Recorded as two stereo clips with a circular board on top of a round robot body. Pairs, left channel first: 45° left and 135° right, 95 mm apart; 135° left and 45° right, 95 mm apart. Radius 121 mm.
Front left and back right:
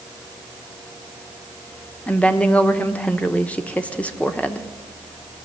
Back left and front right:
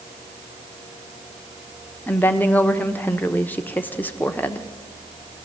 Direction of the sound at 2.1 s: 95° left.